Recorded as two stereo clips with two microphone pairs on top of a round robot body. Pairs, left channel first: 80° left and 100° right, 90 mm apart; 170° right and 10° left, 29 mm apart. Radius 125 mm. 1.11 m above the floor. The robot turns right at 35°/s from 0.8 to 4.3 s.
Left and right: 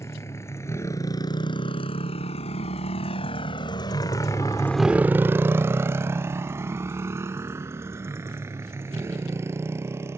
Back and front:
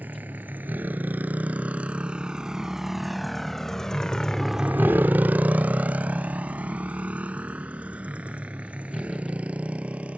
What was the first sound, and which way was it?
A motorcycle, 15° left.